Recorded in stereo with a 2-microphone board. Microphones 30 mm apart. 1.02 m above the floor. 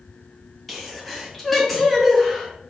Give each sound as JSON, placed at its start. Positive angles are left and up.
{"t": 0.7, "sound": "a sneeze", "side_deg": 5, "distance_m": 1.3}